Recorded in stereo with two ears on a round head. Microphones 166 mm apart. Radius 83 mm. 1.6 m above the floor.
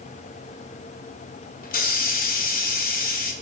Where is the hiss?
50° left (ahead or behind), 1.1 m.